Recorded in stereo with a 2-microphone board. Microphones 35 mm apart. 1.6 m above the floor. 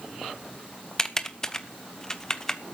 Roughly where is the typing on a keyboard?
Centre.